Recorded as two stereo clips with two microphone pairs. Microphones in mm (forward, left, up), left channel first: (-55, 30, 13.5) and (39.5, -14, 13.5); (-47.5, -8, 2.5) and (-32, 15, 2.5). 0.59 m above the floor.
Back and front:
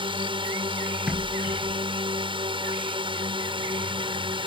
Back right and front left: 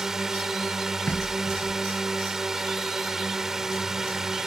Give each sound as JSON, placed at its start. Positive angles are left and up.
{"t": 0.0, "sound": "a drone", "azimuth_deg": -15}
{"t": 1.1, "sound": "knocking", "azimuth_deg": -105}